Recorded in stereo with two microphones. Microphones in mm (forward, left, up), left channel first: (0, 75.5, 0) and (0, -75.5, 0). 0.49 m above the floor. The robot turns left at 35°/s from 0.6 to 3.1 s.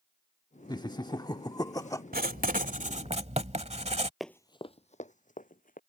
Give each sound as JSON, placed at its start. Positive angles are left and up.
{"t": 0.7, "sound": "laughter", "side_deg": 30}
{"t": 2.1, "sound": "writing", "azimuth_deg": -100}
{"t": 4.2, "sound": "running footsteps", "side_deg": 0}